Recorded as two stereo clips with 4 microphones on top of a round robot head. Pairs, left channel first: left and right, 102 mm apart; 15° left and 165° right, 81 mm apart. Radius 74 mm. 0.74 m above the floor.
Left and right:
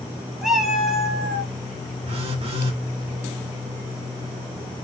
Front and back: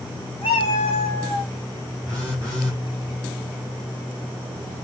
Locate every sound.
0.4 s a cat meowing: 5° right, 1.0 m
2.1 s a phone buzzing: 65° right, 2.5 m